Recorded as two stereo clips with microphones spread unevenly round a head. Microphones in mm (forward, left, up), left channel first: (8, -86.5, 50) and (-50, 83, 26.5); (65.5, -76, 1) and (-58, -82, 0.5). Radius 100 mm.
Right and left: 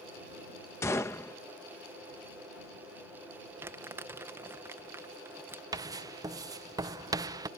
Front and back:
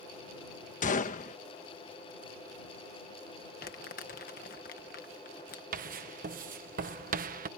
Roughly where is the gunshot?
Ahead.